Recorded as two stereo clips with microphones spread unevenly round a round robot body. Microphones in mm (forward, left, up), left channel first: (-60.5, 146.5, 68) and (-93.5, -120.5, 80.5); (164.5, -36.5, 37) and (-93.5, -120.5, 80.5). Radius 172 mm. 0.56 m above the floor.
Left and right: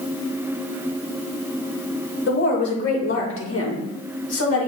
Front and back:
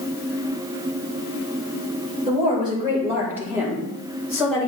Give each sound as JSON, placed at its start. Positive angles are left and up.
{"t": 2.3, "sound": "a woman speaking", "azimuth_deg": 125, "distance_m": 2.5}